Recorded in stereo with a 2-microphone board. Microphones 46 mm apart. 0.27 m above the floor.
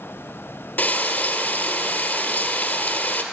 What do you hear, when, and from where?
0.8 s frying: 45° left (ahead or behind), 1.7 m